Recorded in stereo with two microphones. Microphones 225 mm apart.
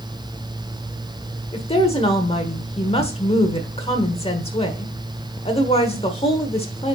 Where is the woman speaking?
25° left (ahead or behind), 1.3 m.